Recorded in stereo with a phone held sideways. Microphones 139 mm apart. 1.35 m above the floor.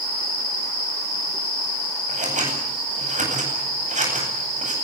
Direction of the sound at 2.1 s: 55° right (ahead or behind).